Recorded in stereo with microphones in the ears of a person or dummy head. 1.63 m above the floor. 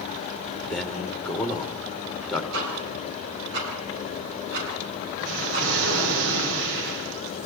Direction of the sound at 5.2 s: 70° right (ahead or behind).